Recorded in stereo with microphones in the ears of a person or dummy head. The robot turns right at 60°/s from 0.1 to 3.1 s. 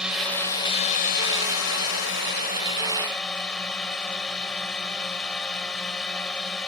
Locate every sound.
0.0 s a drone: 5° right; by 6.7 s 175° left